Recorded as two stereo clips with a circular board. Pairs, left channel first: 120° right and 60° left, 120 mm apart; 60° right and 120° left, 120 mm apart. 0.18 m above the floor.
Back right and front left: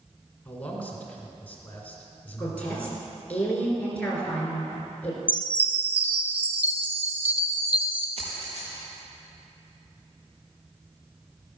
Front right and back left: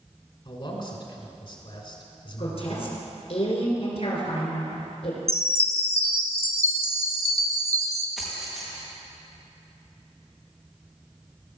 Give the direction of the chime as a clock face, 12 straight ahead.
8 o'clock.